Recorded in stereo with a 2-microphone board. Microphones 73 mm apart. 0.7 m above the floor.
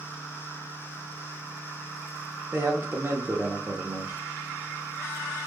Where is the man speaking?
30° right (ahead or behind), 0.9 m.